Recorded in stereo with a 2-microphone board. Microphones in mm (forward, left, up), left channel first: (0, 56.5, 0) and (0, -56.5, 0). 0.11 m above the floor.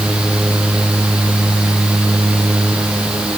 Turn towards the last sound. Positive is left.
No sound to turn to.